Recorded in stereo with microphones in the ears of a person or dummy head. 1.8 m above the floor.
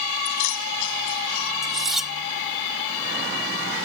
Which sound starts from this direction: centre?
Cutlery clinking, at 1.6 s.